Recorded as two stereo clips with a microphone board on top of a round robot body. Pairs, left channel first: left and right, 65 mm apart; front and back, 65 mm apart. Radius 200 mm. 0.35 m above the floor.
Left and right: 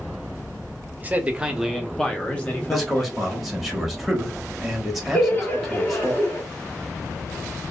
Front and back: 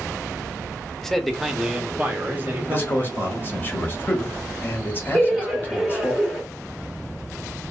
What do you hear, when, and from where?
1.0 s a man speaking: 75° right, 0.9 m; by 3.5 s 135° left, 1.3 m
2.7 s a man speaking: straight ahead, 1.2 m
5.1 s laughter: 95° left, 1.3 m